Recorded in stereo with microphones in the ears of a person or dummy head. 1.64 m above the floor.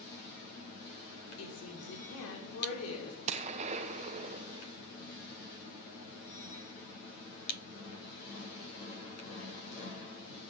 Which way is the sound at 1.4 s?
80° left.